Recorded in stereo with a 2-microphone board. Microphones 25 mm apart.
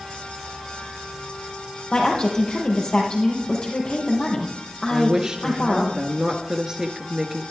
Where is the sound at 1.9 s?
40° left (ahead or behind), 4 m.